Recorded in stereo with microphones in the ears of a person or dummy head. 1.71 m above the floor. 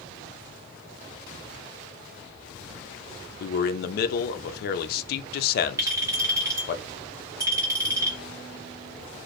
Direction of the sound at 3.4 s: 65° left (ahead or behind).